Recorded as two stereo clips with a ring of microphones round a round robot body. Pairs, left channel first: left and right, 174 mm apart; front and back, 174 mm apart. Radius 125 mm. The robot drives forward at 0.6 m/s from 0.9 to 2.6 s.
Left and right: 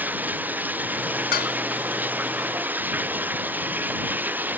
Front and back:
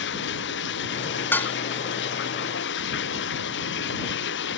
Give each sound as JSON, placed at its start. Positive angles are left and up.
{"t": 0.0, "sound": "running water", "azimuth_deg": -10}
{"t": 1.3, "sound": "dishes clattering", "azimuth_deg": 75}